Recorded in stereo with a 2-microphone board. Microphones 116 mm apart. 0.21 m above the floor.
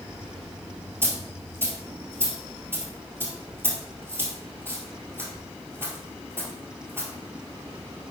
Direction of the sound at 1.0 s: 20° right (ahead or behind).